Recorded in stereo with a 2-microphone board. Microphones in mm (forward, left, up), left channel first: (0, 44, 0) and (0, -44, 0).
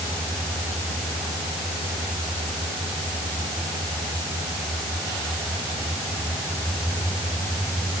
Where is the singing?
I don't hear singing.